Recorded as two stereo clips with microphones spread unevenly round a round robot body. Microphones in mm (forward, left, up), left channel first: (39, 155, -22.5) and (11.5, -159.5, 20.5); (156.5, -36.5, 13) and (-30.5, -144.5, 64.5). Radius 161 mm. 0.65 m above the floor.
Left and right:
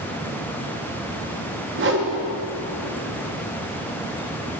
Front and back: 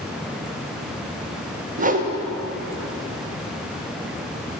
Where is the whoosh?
110° right, 0.9 m.